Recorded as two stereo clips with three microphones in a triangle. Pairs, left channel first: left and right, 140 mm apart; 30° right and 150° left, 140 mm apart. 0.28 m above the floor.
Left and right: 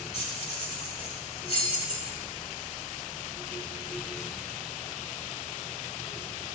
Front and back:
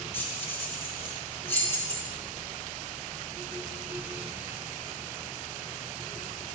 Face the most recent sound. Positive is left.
turn(degrees=45)